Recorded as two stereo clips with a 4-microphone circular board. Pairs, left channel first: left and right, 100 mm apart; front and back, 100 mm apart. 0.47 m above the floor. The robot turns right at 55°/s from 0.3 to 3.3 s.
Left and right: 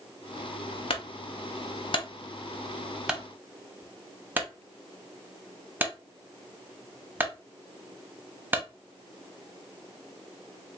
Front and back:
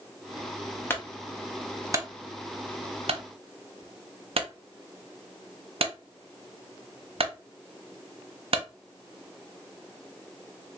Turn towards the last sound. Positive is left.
turn(degrees=-160)